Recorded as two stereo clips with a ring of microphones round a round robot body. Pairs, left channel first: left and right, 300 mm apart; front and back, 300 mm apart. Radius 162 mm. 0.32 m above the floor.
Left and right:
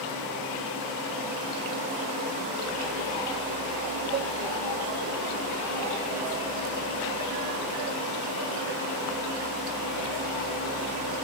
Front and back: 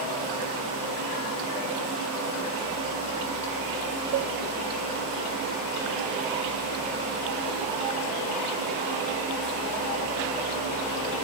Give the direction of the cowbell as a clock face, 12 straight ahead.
5 o'clock.